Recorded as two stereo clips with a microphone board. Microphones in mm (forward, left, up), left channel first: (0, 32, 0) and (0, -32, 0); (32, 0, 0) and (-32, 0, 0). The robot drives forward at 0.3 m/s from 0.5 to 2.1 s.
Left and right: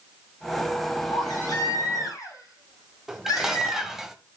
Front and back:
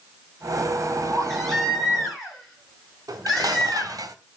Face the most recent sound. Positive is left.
turn(degrees=-175)